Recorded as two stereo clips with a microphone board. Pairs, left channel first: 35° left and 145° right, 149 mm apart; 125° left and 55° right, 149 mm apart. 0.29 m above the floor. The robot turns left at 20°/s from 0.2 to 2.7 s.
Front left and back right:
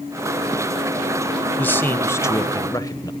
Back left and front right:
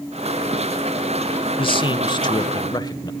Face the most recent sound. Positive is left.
turn(degrees=85)